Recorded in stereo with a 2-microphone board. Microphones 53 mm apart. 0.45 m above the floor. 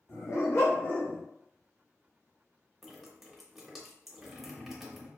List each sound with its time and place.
0.1 s a dog barking: 80° left, 0.9 m; by 1.2 s 15° left (ahead or behind), 0.7 m
2.8 s dripping: centre (ahead or behind), 0.7 m